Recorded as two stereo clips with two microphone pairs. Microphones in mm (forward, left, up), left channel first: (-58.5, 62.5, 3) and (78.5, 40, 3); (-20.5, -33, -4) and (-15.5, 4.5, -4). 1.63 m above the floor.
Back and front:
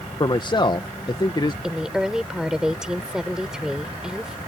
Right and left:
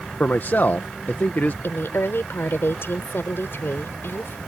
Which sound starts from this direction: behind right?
A man speaking, at 0.2 s.